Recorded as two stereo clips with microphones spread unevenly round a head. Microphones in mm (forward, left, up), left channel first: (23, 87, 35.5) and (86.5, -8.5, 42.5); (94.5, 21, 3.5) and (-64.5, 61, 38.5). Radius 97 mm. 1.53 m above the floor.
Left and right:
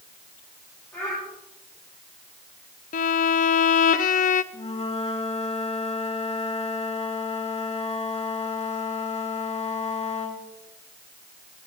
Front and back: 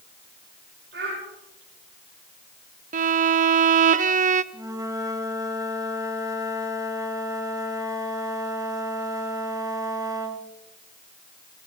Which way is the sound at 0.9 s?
155° right.